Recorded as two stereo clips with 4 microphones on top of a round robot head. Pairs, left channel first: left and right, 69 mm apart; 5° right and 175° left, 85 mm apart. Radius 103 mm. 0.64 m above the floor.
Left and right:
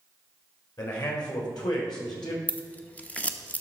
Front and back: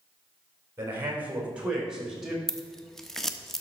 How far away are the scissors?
About 1.0 m.